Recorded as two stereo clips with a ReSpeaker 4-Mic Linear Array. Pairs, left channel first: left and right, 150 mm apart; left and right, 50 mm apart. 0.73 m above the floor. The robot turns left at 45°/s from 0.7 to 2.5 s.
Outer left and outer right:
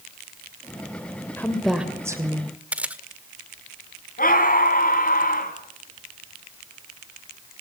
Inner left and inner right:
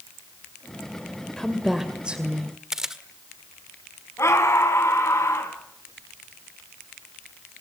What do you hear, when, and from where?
1.4 s a woman speaking: 15° left, 2.5 m; by 2.5 s 40° right, 2.5 m
2.7 s a camera shutter: 10° right (ahead or behind), 1.6 m
4.2 s a scream: 70° left (ahead or behind), 5.5 m